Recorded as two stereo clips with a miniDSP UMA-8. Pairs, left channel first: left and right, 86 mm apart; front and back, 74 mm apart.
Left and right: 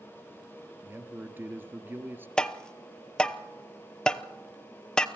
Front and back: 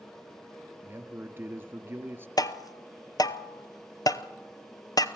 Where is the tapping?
10° left, 0.8 m.